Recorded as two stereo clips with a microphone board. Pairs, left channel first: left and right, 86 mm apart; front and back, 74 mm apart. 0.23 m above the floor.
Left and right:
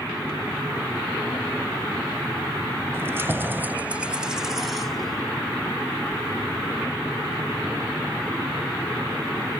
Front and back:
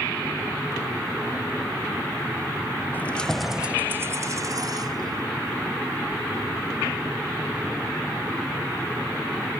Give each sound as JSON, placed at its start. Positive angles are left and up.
{"t": 2.9, "sound": "keys jangling", "azimuth_deg": -50, "distance_m": 0.7}